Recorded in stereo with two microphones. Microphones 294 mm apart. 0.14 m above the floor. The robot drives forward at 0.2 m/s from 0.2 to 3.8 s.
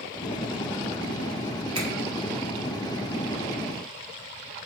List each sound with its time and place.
1.8 s a finger snap: 55° right (ahead or behind), 1.8 m